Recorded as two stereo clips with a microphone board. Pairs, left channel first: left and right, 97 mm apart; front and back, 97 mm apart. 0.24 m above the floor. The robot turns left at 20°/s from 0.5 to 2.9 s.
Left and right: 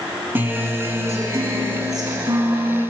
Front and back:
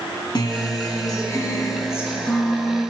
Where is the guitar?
25° right, 1.9 m; by 2.8 s 75° right, 1.9 m.